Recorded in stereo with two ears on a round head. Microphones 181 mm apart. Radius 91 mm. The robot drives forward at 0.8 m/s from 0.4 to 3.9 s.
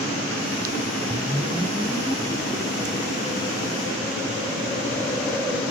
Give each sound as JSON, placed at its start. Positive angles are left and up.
{"t": 1.1, "sound": "a whoosh", "side_deg": 5, "distance_m": 0.7}